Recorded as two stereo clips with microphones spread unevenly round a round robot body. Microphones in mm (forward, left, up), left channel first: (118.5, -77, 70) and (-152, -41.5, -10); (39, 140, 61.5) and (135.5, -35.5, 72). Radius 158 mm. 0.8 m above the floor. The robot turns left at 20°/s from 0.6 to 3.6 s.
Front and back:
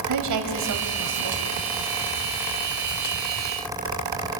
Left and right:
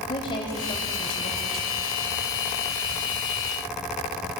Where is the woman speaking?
165° right, 4 m; by 1.4 s 175° left, 4 m.